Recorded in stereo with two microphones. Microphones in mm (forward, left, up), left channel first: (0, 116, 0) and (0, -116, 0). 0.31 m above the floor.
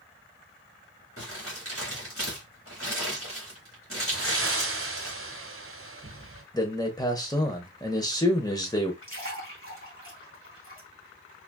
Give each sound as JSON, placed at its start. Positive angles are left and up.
{"t": 1.2, "sound": "crumpling", "side_deg": 65, "distance_m": 2.5}
{"t": 4.1, "sound": "breathing", "side_deg": -60, "distance_m": 1.1}
{"t": 6.5, "sound": "a man speaking", "side_deg": 15, "distance_m": 0.9}
{"t": 9.0, "sound": "a splash", "side_deg": 55, "distance_m": 2.0}